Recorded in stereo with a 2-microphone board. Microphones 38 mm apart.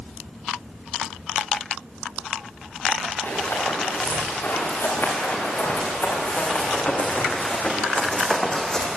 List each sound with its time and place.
3.2 s running footsteps: 70° left (ahead or behind), 9.5 m; by 8.9 s 15° left (ahead or behind), 4 m